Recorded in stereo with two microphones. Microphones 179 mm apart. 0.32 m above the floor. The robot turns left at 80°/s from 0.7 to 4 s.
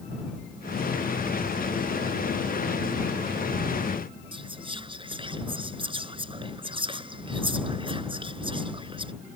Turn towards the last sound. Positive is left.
turn(degrees=-30)  # may be behind; listen again after turning